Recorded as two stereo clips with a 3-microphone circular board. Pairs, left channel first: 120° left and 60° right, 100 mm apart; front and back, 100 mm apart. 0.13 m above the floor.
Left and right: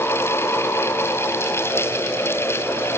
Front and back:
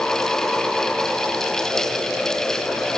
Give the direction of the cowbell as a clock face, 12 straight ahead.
I don't hear a cowbell.